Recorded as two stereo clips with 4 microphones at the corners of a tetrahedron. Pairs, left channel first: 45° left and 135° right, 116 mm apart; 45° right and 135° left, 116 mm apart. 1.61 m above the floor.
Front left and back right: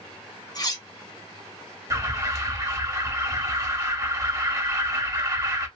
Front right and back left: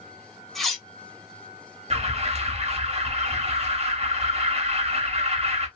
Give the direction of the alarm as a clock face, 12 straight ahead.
7 o'clock.